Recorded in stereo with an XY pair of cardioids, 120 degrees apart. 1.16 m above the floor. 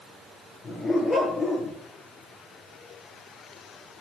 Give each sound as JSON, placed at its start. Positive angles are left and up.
{"t": 0.6, "sound": "a dog barking", "azimuth_deg": 25, "distance_m": 7.5}